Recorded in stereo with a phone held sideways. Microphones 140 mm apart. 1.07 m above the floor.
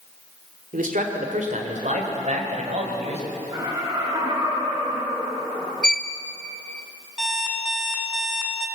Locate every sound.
0.7 s a man speaking: 70° right (ahead or behind), 3 m; by 3.2 s 55° right (ahead or behind), 5.5 m
3.5 s laughter: 30° right (ahead or behind), 9.5 m
5.8 s a violin: 5° left (ahead or behind), 1.1 m
7.2 s an alarm clock: 5° right (ahead or behind), 3.5 m